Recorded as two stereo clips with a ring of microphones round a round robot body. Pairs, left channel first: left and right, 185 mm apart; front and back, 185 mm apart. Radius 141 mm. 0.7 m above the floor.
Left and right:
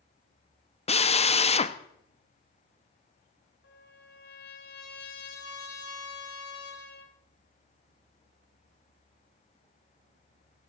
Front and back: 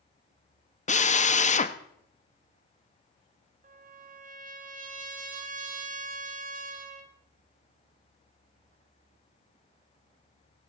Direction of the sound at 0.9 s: 40° left.